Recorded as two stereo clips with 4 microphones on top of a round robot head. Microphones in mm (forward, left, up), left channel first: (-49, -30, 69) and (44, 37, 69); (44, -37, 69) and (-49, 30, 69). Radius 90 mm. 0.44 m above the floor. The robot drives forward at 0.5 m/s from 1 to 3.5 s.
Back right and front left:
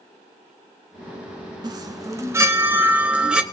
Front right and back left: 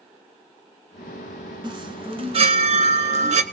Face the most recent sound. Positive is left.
turn(degrees=120)